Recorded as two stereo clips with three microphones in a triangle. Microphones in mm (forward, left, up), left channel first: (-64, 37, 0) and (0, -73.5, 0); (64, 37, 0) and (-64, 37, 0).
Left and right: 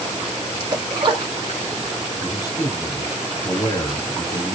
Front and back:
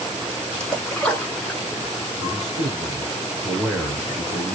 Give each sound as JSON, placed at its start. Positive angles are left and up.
{"t": 0.6, "sound": "a splash", "azimuth_deg": -80, "distance_m": 1.2}
{"t": 2.2, "sound": "a man speaking", "azimuth_deg": 80, "distance_m": 1.7}